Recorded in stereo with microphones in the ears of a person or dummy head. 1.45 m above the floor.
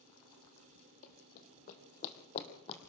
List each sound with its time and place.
1.0 s running footsteps: 55° left (ahead or behind), 2.5 m; by 2.8 s 35° left (ahead or behind), 3 m